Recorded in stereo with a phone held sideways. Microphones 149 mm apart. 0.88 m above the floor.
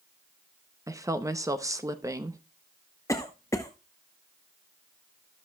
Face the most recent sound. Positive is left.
turn(degrees=20)  # may be behind; listen again after turning